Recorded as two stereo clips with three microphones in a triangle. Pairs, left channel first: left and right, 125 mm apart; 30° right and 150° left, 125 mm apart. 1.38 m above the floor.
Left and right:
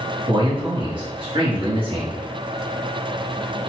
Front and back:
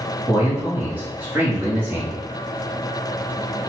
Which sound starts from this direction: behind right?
A man speaking, at 0.3 s.